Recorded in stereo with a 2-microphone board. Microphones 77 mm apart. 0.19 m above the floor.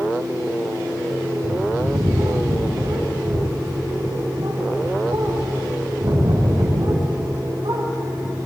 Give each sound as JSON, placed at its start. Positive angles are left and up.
{"t": 1.4, "sound": "a bird", "side_deg": -85, "distance_m": 4.0}